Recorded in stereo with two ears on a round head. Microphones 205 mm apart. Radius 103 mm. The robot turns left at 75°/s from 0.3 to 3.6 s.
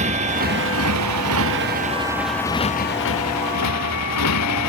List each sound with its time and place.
0.0 s a motorcycle: 30° right; by 4.7 s 80° left